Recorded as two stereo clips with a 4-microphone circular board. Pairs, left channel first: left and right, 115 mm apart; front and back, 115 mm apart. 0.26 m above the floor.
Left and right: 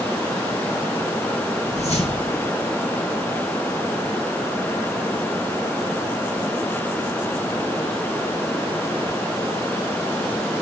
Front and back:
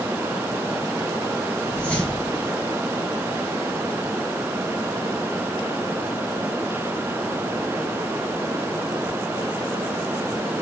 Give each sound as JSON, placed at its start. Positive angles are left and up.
{"t": 1.7, "sound": "a whoosh", "azimuth_deg": 80, "distance_m": 4.0}